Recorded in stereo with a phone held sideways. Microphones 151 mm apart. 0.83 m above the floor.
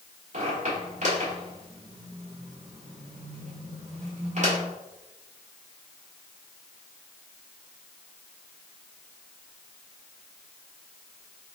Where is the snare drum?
I don't hear a snare drum.